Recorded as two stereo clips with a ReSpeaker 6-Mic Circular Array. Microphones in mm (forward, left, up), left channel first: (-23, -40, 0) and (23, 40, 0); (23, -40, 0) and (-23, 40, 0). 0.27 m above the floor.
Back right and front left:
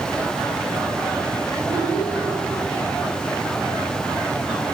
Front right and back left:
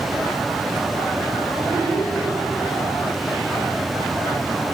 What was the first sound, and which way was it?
A child speaking, 115° right.